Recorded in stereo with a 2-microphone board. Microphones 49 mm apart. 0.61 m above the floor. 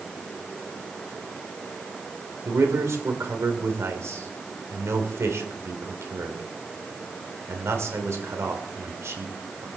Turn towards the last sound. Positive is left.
turn(degrees=-65)  # may be behind; listen again after turning